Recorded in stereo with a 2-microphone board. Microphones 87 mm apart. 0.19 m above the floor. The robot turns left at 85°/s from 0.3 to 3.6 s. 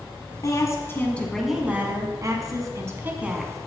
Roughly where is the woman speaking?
Left.